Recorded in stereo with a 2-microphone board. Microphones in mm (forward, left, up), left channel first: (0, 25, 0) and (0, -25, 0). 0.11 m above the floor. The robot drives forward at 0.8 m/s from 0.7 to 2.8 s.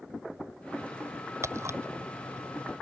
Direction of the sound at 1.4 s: 65° right (ahead or behind).